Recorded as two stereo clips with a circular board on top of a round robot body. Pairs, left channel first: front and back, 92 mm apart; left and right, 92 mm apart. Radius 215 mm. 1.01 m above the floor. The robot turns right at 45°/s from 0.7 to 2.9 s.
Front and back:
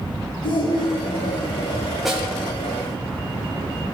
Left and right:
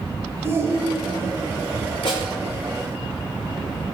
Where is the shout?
30° right, 3.5 m; by 1.5 s 5° left, 3.5 m.